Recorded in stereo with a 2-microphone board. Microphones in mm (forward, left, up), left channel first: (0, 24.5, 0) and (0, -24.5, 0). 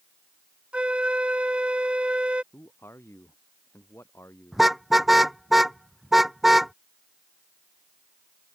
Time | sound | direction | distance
0.7 | a flute | 25° right (ahead or behind) | ?
2.5 | a man speaking | 60° left (ahead or behind) | ?
4.5 | a car horn | 5° right (ahead or behind) | ?